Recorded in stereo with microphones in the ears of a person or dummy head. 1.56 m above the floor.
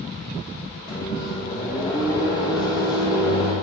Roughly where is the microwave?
Left.